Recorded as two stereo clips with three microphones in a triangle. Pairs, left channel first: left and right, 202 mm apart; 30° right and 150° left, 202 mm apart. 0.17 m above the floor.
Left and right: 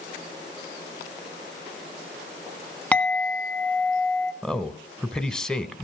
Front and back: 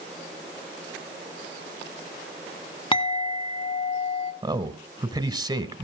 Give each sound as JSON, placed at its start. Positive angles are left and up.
{"t": 2.9, "sound": "a clink", "azimuth_deg": 10, "distance_m": 1.1}
{"t": 4.4, "sound": "a man speaking", "azimuth_deg": 170, "distance_m": 1.0}